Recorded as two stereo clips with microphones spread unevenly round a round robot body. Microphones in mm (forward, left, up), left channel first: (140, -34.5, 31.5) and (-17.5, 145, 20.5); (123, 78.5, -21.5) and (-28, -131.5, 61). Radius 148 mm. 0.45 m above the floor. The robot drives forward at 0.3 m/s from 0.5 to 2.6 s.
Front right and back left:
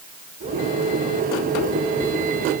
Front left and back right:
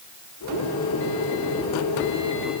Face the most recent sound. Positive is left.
No sound to turn to.